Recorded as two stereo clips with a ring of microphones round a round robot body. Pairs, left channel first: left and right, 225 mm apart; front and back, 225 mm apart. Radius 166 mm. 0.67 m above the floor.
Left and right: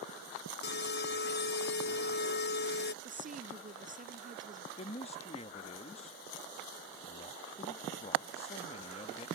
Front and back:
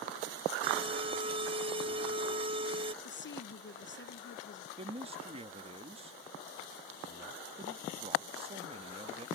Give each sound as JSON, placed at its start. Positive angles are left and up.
{"t": 0.6, "sound": "an alarm", "azimuth_deg": 120}
{"t": 3.0, "sound": "a woman speaking", "azimuth_deg": -35}
{"t": 4.8, "sound": "a man speaking", "azimuth_deg": 135}